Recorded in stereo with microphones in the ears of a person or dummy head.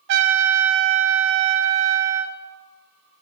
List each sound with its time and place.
0.1 s a trumpet: 60° right (ahead or behind), 1.0 m